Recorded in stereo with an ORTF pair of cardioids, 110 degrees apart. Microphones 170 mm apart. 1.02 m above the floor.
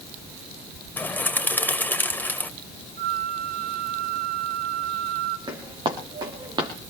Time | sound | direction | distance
1.0 | a bird | 10° left | 1.7 m
3.0 | a flute | 70° right | 2.0 m
5.5 | footsteps | 25° right | 5.5 m